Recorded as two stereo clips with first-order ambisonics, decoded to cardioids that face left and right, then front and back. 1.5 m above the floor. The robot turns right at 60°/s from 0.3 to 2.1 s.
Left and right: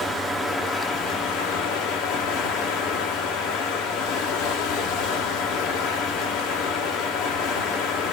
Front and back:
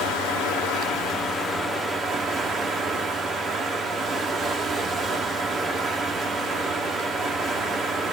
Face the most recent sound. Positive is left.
turn(degrees=115)